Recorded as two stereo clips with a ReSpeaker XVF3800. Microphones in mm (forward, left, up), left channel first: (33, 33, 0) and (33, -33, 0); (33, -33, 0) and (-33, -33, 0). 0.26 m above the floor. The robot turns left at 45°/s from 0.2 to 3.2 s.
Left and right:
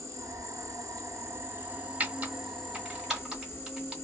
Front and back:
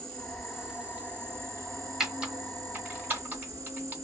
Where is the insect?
75° right, 1.5 m; by 4.0 s 150° left, 1.5 m.